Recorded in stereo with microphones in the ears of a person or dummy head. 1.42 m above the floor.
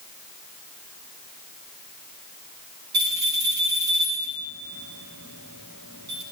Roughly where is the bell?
Right.